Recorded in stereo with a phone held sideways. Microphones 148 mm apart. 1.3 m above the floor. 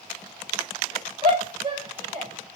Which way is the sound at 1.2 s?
35° right (ahead or behind).